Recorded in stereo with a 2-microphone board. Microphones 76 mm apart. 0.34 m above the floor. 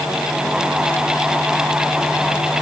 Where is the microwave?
I don't hear a microwave.